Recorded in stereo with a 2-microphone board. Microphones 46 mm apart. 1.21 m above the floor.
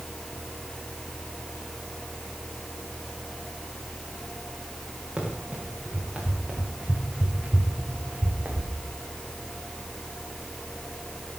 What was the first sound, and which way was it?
Running footsteps, 15° right (ahead or behind).